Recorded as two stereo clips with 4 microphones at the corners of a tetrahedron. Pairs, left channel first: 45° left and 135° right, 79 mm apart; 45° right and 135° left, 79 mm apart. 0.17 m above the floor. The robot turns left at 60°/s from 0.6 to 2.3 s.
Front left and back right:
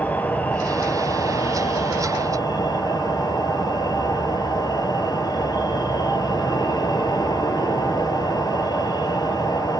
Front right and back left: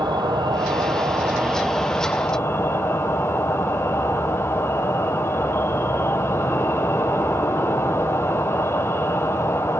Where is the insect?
115° left, 1.2 m; by 9.8 s 10° left, 1.2 m.